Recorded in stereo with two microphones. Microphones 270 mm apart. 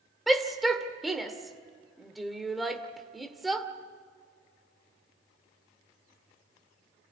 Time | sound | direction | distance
0.3 | a shout | centre (ahead or behind) | 1.9 m